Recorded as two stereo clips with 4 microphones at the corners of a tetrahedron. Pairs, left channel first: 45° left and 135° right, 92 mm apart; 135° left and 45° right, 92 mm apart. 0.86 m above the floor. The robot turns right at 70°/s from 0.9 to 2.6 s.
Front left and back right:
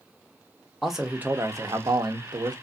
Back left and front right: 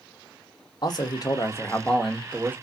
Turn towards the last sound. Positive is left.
turn(degrees=-105)